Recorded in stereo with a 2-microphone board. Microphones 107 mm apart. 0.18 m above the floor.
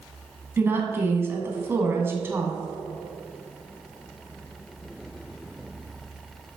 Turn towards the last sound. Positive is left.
turn(degrees=-20)  # may be behind; listen again after turning